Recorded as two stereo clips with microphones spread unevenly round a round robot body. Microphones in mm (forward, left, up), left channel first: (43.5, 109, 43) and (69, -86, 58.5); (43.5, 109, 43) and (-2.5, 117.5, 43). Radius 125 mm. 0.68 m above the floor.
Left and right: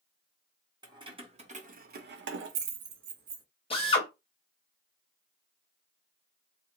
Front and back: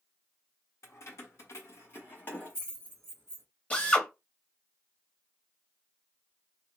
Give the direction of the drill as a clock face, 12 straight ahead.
10 o'clock.